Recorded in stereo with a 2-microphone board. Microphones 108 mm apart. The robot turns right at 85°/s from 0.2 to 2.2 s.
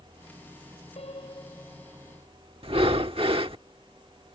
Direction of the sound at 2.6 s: 60° right (ahead or behind).